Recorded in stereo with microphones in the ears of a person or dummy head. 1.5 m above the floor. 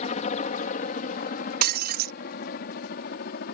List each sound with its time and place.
0.0 s a helicopter: 45° left (ahead or behind); by 3.5 s 55° left (ahead or behind)
1.6 s breaking glass: 55° right (ahead or behind)